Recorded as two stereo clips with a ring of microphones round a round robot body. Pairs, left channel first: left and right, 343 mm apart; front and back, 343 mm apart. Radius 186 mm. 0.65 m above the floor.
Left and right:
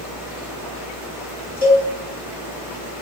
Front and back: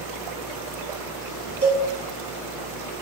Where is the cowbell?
105° left, 2 m.